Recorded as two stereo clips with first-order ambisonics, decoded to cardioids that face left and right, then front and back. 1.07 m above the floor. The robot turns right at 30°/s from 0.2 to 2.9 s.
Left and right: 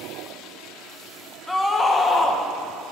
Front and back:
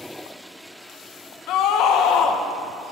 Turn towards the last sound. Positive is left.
turn(degrees=50)